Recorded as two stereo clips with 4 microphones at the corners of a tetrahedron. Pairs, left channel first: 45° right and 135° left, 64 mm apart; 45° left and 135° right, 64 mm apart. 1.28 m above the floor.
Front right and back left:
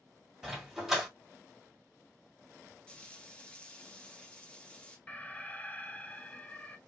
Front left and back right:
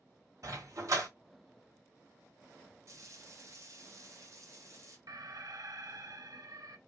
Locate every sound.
0.4 s a dog barking: 140° right, 1.8 m
2.9 s frying: 115° right, 1.2 m
5.1 s an alarm: 115° right, 0.5 m